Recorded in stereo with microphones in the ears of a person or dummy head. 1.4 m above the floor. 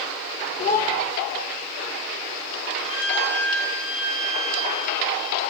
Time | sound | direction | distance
0.6 | a child speaking | 45° left (ahead or behind) | 0.9 m
2.9 | a violin | 75° left (ahead or behind) | 5.5 m